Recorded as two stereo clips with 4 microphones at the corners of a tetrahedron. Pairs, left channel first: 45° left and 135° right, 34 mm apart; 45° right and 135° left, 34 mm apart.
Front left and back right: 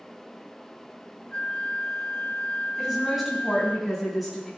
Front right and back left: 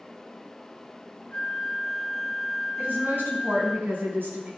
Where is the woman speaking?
140° left, 4 m.